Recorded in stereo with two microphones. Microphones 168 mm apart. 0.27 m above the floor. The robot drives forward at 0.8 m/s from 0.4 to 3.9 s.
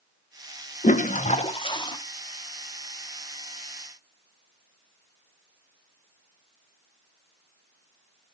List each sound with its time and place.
0.8 s a toilet flushing: 45° left (ahead or behind), 0.5 m; by 2.0 s 25° left (ahead or behind), 0.9 m